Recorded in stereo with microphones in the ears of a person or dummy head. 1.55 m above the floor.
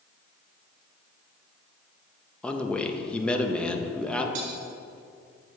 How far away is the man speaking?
About 0.5 m.